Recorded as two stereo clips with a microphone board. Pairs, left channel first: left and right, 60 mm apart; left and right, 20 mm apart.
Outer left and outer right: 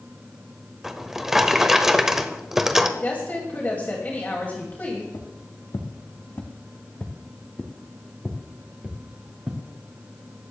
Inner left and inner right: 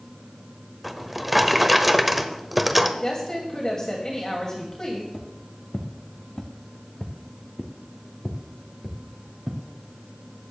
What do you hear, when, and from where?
0.8 s a drawer: 5° right (ahead or behind), 0.9 m
3.0 s a woman speaking: 30° left (ahead or behind), 2.5 m
5.1 s footsteps: 65° left (ahead or behind), 2.5 m; by 9.6 s 25° right (ahead or behind), 3 m